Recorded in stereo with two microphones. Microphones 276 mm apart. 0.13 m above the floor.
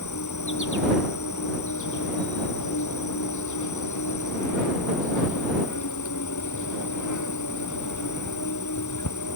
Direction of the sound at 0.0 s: 90° left.